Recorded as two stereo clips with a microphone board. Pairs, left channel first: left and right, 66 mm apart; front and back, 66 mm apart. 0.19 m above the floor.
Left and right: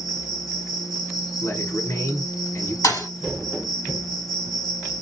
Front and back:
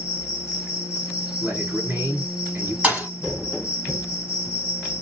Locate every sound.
0.0 s an insect: 110° left, 1.1 m
1.4 s a man speaking: 125° left, 2 m
2.8 s a thud: 115° left, 2 m